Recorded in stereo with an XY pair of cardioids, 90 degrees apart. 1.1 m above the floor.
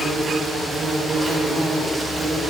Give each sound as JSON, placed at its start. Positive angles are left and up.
{"t": 0.0, "sound": "an insect", "azimuth_deg": -20, "distance_m": 5.5}